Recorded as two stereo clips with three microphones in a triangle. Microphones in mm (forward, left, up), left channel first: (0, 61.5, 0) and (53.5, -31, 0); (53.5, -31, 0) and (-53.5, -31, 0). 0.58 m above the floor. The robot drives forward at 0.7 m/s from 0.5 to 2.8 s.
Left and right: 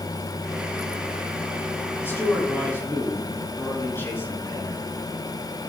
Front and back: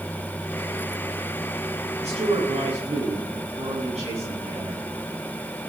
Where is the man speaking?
170° right, 5.5 m; by 4.8 s 175° right, 6 m.